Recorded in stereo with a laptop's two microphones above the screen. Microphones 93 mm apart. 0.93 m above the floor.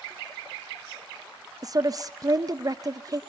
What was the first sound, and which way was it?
A woman speaking, 40° right (ahead or behind).